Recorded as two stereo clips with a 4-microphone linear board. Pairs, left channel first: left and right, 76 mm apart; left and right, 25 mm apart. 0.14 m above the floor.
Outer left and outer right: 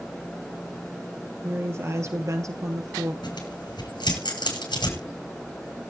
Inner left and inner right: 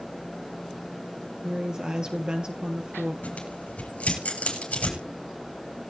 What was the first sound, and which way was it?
A woman speaking, 30° right (ahead or behind).